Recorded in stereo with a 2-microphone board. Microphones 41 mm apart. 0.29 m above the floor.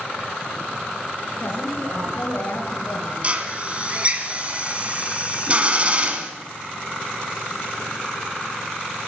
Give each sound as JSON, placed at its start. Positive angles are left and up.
{"t": 1.4, "sound": "a woman speaking", "side_deg": 55, "distance_m": 4.0}
{"t": 3.2, "sound": "a drill", "side_deg": -30, "distance_m": 1.4}